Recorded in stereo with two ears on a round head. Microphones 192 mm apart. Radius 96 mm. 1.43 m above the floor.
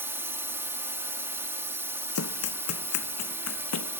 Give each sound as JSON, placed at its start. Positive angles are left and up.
{"t": 0.0, "sound": "a drone", "side_deg": -10}
{"t": 2.1, "sound": "running footsteps", "side_deg": 75}